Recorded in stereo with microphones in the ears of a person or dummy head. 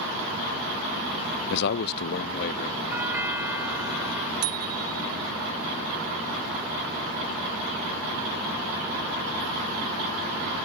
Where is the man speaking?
65° left (ahead or behind); by 2.8 s 55° left (ahead or behind).